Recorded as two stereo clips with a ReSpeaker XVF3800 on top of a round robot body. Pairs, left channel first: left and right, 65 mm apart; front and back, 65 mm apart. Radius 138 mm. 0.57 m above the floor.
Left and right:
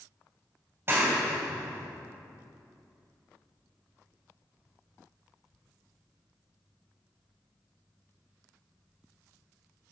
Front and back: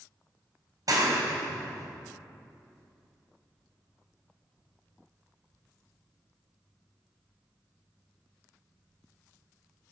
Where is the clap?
150° right, 3 m.